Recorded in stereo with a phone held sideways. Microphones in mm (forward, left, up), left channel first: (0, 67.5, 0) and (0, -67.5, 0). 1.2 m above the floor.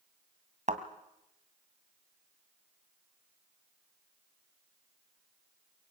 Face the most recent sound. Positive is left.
turn(degrees=-60)  # may be behind; listen again after turning